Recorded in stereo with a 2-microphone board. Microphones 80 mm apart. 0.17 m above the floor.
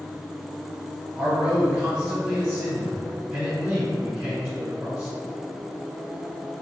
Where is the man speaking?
25° right (ahead or behind), 2.0 m.